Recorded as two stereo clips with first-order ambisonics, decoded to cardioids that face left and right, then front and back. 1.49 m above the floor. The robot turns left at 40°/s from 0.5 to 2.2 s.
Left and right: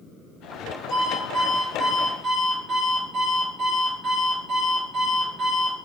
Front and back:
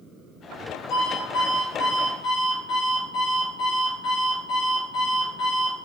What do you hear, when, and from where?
0.9 s an alarm clock: 15° left, 1.7 m; by 5.8 s 35° right, 1.7 m